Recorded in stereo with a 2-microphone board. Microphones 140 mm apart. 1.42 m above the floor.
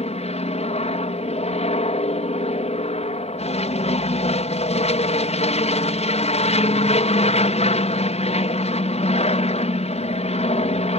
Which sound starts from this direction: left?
An aircraft, at 0.0 s.